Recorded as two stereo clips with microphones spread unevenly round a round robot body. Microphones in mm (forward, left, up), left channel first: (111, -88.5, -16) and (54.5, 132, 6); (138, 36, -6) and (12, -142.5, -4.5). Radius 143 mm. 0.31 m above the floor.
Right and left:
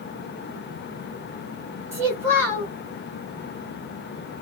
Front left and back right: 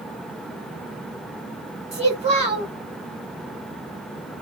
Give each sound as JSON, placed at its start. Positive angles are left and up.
{"t": 1.9, "sound": "a child speaking", "azimuth_deg": -175, "distance_m": 1.2}